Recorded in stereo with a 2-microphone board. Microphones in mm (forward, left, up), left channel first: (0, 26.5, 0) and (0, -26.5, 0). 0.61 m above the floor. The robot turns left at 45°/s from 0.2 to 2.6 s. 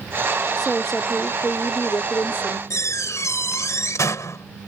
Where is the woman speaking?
175° right; by 2.6 s 95° left.